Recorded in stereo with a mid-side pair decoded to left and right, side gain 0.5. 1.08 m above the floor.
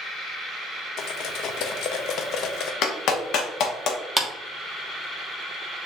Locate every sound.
1.0 s cutlery clinking: 70° left, 0.6 m
2.8 s a clap: 65° left, 1.0 m
4.2 s a clap: 5° right, 1.3 m